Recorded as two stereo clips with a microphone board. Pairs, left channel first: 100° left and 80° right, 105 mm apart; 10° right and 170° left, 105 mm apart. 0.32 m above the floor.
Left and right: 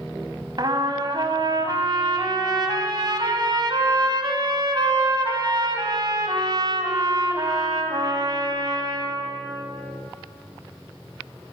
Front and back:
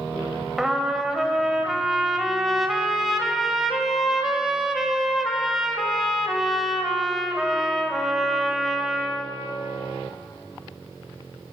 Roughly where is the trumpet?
Right.